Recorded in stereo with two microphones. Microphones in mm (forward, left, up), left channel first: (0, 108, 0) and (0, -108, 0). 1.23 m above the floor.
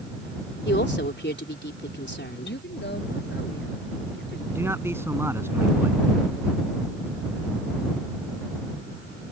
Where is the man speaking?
10° right (ahead or behind).